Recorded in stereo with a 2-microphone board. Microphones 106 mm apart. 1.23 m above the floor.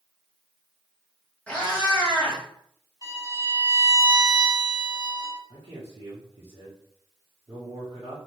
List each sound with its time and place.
1.5 s a cat meowing: 10° left (ahead or behind), 1.1 m
3.0 s a violin: 35° right (ahead or behind), 1.9 m
5.5 s a man speaking: 70° right (ahead or behind), 1.0 m